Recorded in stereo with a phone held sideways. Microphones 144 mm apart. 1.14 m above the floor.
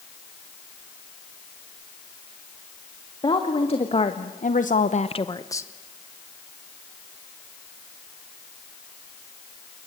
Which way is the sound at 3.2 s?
35° left (ahead or behind).